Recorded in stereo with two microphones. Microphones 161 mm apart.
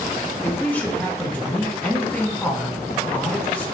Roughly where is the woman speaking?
Centre.